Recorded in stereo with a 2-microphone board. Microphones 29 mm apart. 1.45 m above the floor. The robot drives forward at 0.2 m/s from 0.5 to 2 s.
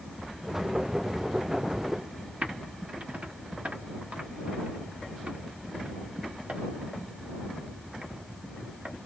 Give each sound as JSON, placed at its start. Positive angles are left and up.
{"t": 2.4, "sound": "typing on a keyboard", "side_deg": -50, "distance_m": 1.1}